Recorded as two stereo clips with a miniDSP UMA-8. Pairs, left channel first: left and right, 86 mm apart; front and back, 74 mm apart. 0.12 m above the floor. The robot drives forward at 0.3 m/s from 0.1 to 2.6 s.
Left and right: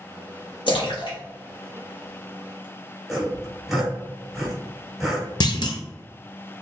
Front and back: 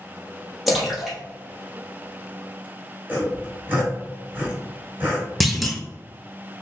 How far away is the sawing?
About 1.5 m.